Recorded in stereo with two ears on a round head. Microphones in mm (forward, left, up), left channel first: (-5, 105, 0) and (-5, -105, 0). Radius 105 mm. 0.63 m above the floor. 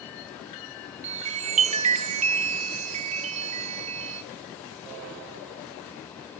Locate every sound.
1.0 s a chime: 30° right (ahead or behind), 0.6 m